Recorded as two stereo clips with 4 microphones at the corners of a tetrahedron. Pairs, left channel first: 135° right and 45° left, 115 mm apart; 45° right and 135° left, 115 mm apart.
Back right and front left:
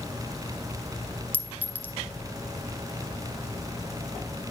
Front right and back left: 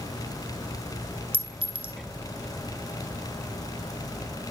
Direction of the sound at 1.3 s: 120° left.